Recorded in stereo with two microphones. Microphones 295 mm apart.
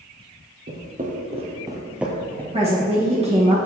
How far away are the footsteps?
About 1.7 m.